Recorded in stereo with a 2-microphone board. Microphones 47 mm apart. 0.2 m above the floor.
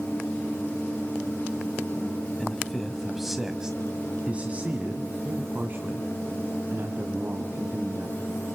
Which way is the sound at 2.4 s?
15° left (ahead or behind).